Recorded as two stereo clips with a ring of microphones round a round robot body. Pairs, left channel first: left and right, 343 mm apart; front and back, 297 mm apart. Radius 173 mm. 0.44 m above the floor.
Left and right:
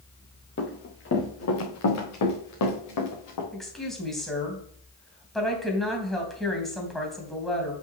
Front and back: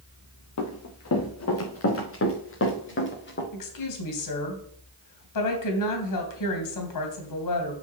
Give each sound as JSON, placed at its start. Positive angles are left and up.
{"t": 0.6, "sound": "running footsteps", "azimuth_deg": 30, "distance_m": 3.5}
{"t": 3.5, "sound": "a woman speaking", "azimuth_deg": 0, "distance_m": 3.0}